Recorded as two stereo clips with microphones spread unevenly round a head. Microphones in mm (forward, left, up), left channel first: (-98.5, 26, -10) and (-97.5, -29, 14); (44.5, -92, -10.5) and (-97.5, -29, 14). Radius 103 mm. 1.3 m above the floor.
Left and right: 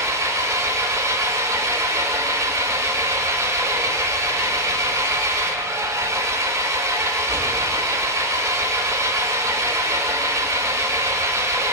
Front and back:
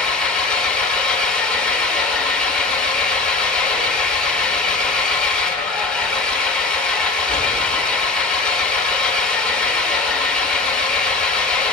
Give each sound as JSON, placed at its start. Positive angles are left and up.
{"t": 0.0, "sound": "an engine running", "azimuth_deg": -110, "distance_m": 4.0}